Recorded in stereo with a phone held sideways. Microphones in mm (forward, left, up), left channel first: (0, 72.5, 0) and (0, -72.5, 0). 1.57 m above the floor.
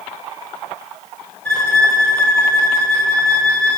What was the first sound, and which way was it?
A violin, 5° left (ahead or behind).